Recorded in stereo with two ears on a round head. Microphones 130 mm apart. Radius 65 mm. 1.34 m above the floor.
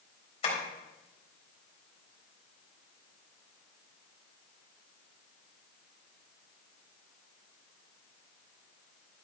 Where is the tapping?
40° left (ahead or behind), 4 m.